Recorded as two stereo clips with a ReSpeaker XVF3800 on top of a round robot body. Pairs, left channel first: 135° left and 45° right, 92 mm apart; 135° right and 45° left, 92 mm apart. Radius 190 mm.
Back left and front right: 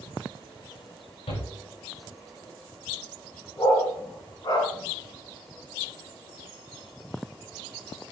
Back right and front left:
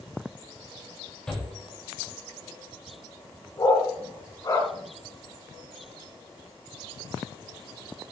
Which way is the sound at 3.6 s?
175° left.